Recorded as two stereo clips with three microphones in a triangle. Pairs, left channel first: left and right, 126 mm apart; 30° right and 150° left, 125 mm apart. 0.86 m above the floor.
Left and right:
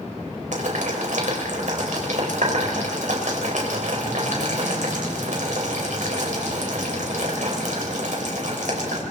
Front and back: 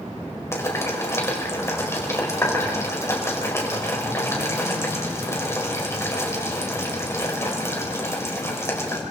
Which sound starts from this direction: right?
Boiling, at 0.5 s.